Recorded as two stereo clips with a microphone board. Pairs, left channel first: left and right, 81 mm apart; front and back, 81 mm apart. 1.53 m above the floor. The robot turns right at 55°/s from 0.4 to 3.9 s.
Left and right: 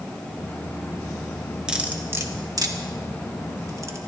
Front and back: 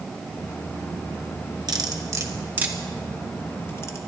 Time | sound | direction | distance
1.7 | cutlery clinking | 170° right | 1.6 m